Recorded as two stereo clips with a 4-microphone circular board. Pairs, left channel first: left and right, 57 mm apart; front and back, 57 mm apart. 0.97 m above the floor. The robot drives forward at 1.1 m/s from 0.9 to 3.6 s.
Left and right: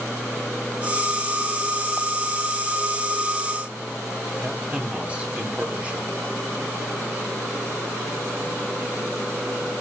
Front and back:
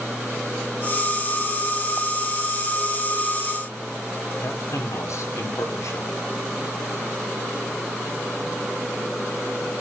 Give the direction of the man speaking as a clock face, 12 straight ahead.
1 o'clock.